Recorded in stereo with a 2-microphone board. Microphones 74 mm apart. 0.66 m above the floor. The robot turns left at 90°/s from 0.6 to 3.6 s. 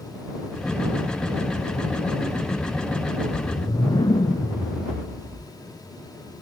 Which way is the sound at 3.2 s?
155° left.